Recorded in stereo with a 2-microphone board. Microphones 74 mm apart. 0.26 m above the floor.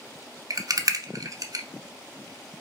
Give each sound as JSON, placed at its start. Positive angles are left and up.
{"t": 0.5, "sound": "a rattle", "side_deg": -55, "distance_m": 0.5}